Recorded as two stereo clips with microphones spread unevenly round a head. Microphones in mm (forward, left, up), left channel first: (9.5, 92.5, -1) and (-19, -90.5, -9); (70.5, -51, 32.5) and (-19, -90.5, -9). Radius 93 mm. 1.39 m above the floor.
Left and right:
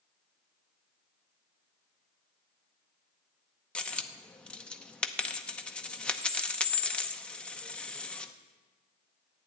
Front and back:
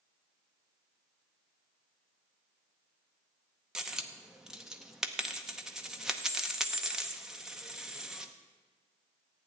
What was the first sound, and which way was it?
A dropped coin, 15° left.